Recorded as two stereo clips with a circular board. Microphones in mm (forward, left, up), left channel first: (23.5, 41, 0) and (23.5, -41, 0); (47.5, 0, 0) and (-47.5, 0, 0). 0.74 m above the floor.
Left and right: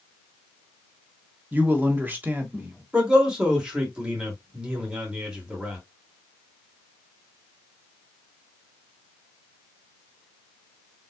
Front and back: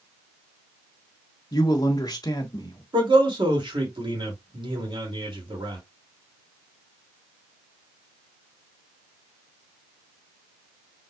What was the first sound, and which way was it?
A man speaking, 30° right.